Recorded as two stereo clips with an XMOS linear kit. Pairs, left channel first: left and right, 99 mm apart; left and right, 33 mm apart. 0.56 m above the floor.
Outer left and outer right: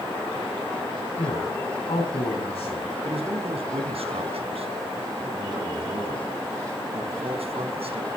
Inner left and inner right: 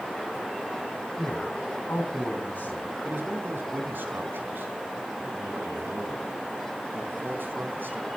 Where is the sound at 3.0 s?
80° right, 4 m.